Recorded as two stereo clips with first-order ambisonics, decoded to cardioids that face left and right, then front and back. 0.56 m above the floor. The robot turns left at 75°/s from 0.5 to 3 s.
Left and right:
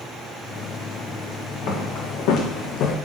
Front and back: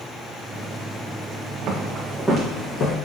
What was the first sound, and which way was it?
Footsteps, 135° left.